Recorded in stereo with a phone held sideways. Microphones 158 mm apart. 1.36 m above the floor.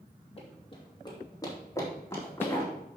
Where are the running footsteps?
40° left (ahead or behind), 2.5 m; by 2.7 s 10° left (ahead or behind), 4.5 m.